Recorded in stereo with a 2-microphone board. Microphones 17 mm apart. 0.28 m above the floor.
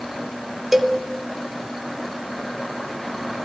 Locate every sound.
0.7 s a cowbell: 20° right (ahead or behind), 0.7 m